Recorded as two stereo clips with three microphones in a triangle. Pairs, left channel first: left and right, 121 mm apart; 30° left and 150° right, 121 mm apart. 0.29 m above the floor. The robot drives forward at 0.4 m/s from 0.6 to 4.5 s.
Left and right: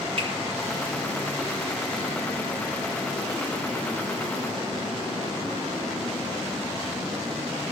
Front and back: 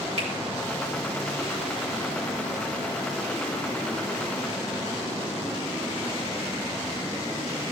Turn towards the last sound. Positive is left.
turn(degrees=-145)